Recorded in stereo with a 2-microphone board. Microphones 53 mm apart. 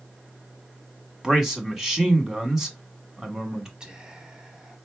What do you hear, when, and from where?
1.2 s a man speaking: 10° right (ahead or behind), 1.3 m
3.8 s whispering: 15° right (ahead or behind), 1.0 m